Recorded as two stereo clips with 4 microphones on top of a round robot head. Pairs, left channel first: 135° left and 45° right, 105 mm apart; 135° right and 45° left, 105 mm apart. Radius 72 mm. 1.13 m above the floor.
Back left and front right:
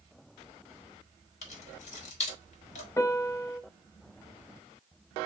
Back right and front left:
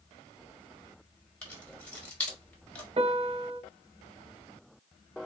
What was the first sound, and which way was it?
Keys jangling, 150° left.